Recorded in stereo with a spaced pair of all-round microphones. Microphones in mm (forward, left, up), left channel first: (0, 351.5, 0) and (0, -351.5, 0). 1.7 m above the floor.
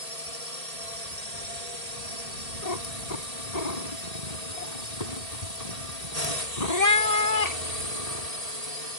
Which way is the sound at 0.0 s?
60° right (ahead or behind).